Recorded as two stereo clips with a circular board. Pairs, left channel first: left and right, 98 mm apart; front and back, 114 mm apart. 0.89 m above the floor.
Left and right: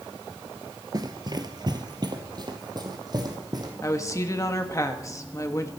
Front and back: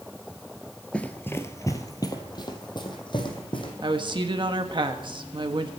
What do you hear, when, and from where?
0.9 s running footsteps: 75° right, 1.0 m; by 3.7 s 45° right, 3 m
3.8 s a woman speaking: 145° left, 1.5 m